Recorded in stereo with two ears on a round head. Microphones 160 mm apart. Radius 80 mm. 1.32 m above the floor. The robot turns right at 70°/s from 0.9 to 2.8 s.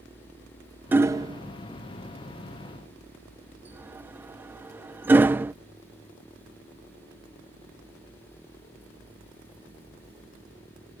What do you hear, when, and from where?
0.9 s hammering: 10° right (ahead or behind)